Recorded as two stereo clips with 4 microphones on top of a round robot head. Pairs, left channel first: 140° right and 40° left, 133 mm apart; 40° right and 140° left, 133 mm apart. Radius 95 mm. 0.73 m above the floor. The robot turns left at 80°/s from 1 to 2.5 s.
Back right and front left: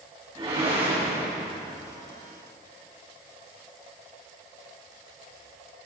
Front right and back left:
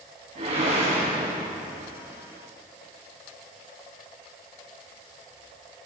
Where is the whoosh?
90° left, 4 m; by 1.9 s 20° left, 4 m.